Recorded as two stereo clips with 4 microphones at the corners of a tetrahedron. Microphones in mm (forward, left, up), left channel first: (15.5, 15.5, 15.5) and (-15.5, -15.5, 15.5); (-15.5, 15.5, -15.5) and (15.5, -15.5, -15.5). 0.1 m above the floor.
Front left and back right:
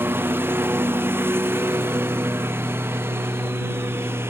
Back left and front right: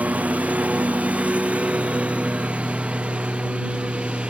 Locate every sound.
0.0 s a lawn mower: 100° right; by 4.3 s 110° right